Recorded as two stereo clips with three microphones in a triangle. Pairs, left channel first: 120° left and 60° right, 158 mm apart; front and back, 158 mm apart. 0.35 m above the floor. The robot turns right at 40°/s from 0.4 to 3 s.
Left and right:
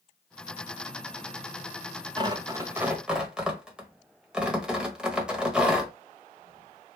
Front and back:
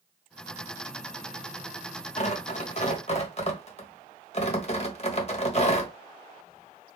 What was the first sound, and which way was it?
Tearing paper, 10° right.